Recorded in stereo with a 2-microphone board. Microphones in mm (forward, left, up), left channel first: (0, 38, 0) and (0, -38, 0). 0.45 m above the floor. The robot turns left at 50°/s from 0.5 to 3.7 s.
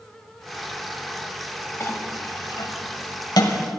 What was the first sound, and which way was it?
A clink, 30° left (ahead or behind).